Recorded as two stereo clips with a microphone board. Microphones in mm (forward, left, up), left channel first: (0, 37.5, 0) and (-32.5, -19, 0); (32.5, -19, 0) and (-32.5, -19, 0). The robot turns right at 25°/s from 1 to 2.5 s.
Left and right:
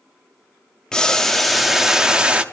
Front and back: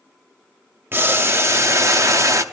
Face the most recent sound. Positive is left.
turn(degrees=175)